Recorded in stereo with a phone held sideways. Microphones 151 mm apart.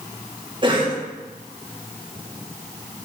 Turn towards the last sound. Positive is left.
turn(degrees=-30)  # may be behind; listen again after turning